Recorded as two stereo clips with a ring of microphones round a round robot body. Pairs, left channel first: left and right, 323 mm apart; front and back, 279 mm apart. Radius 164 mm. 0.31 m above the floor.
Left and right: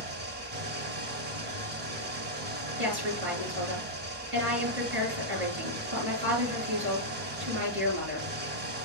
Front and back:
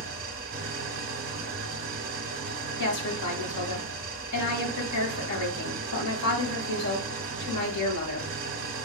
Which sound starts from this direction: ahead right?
A woman speaking, at 2.8 s.